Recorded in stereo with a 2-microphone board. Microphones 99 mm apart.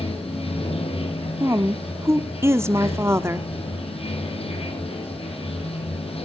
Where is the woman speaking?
25° right (ahead or behind), 0.7 m.